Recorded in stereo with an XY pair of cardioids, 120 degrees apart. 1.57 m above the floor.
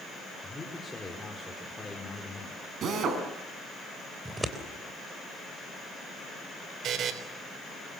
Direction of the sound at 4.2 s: 15° right.